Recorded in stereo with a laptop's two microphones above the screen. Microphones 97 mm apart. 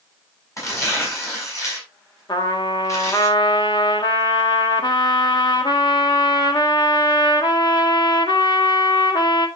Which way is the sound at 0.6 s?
35° left (ahead or behind).